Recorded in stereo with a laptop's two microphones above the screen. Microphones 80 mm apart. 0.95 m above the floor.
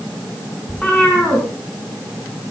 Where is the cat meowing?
15° left (ahead or behind), 4 m.